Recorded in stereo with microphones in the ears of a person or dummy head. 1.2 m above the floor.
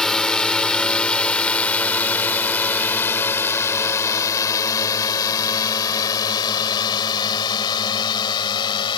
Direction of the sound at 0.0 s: 5° left (ahead or behind).